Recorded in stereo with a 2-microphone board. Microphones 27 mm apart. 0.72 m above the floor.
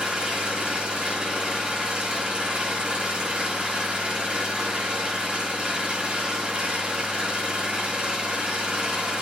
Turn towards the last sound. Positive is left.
turn(degrees=-40)  # may be behind; listen again after turning